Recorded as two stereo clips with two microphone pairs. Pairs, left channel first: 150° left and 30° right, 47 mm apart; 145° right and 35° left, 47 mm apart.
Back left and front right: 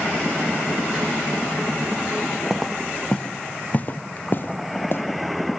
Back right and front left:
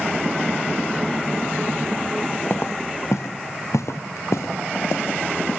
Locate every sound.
2.5 s footsteps: 105° right, 0.7 m; by 5.0 s 165° right, 2 m